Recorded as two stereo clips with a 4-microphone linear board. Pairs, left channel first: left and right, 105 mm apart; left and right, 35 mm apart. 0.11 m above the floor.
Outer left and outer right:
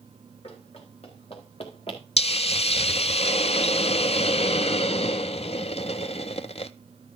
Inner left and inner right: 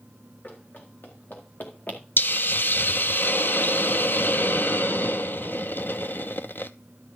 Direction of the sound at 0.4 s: 75° left (ahead or behind).